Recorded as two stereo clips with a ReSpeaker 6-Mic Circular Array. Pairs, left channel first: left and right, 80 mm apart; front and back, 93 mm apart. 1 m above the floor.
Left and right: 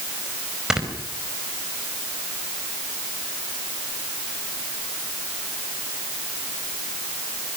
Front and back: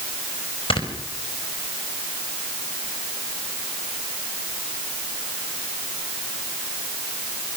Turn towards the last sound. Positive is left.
turn(degrees=-10)